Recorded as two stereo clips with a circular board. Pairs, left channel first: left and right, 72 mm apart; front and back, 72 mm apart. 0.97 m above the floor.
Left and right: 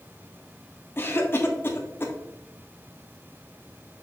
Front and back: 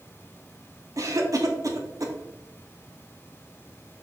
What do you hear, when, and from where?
1.0 s a cough: 145° left, 1.6 m